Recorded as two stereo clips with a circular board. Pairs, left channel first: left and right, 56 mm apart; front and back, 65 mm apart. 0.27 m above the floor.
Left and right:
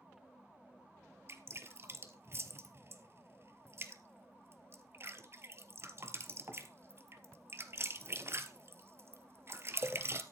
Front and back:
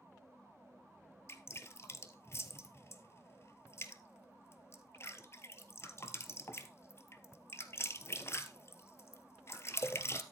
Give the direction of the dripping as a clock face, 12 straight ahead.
2 o'clock.